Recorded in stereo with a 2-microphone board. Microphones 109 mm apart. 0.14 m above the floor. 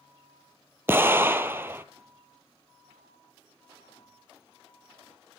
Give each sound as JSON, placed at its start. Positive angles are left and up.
{"t": 0.9, "sound": "an explosion", "side_deg": -20, "distance_m": 0.5}